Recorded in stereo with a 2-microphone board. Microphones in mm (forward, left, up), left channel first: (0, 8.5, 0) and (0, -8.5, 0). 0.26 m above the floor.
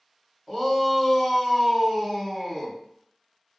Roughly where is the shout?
Centre.